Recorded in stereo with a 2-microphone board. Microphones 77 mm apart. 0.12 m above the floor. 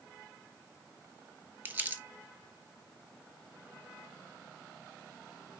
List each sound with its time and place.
1.6 s crumpling: 25° right (ahead or behind), 0.6 m